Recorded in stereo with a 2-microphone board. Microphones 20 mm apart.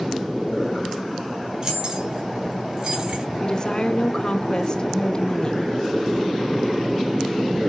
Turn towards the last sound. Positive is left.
turn(degrees=35)  # may be behind; listen again after turning